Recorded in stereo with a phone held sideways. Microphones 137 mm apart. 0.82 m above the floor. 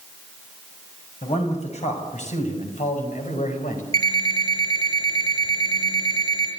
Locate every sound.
1.2 s a man speaking: 50° left (ahead or behind), 6.5 m; by 3.8 s 75° left (ahead or behind), 5 m
3.9 s an alarm clock: 25° left (ahead or behind), 8 m